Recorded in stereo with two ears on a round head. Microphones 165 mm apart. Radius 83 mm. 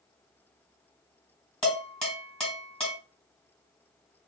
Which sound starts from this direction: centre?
Dishes clattering, at 1.6 s.